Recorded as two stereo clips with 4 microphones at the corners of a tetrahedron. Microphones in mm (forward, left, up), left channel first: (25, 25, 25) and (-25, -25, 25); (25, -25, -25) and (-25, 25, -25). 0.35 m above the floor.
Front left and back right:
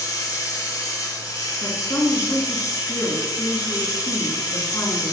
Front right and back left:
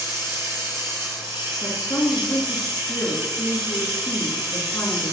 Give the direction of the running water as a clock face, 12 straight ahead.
9 o'clock.